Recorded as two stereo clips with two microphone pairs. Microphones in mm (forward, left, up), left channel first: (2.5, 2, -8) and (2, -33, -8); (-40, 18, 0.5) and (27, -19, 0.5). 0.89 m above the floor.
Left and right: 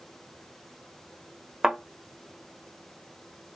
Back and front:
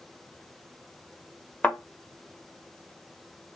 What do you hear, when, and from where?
1.6 s a thud: 145° right, 0.7 m